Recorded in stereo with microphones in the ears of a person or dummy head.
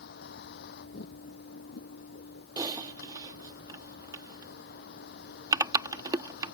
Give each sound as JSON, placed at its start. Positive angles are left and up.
{"t": 0.0, "sound": "a vehicle", "side_deg": 55}
{"t": 2.6, "sound": "typing on a keyboard", "side_deg": -25}